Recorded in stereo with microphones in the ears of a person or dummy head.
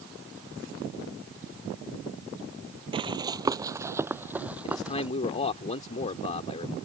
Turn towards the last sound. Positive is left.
turn(degrees=35)  # may be behind; listen again after turning